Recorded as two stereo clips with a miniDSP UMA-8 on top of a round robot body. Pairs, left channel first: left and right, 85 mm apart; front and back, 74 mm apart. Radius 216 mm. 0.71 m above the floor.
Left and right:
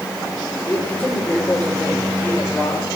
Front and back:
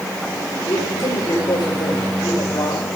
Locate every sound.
0.7 s a man speaking: 15° left, 4 m